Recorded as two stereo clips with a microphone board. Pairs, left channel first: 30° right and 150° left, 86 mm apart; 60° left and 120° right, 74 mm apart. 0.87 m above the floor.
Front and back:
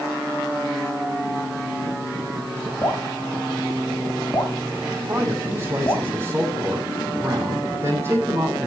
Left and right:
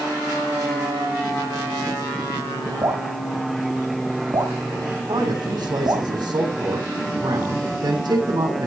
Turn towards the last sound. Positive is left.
turn(degrees=-145)